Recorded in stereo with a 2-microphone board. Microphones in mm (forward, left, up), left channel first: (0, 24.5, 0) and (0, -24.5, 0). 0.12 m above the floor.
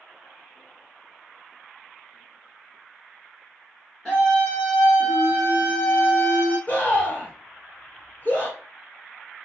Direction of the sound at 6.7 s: 35° left (ahead or behind).